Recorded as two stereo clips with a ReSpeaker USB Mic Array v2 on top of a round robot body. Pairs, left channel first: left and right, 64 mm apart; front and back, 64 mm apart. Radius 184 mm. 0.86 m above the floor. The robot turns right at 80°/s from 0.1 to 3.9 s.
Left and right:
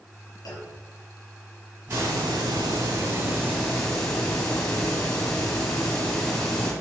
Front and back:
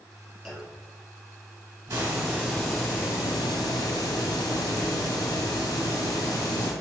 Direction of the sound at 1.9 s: 150° right.